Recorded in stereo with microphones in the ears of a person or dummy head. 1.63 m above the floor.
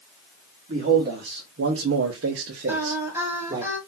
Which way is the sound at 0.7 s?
40° right (ahead or behind).